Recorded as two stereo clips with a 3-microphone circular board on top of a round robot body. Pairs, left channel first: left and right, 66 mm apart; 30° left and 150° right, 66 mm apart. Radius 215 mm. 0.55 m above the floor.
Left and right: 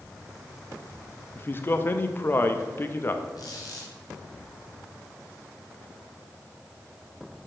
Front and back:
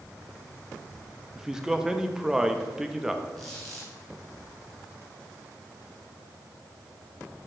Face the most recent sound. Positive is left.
turn(degrees=115)